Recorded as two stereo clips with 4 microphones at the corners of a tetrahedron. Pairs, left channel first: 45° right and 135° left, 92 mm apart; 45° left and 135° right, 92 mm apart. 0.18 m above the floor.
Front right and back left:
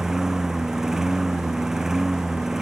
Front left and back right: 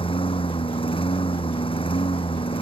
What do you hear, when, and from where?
0.0 s a lawn mower: 50° left